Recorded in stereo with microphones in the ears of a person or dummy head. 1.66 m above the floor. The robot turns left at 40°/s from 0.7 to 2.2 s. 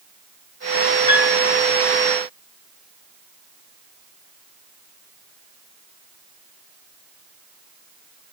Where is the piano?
40° left (ahead or behind), 8 m; by 1.4 s 55° left (ahead or behind), 8 m.